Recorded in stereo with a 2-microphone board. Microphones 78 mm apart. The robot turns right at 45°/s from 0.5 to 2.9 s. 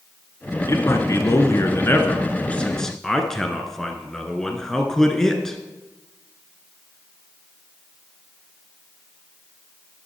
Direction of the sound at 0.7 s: 70° left.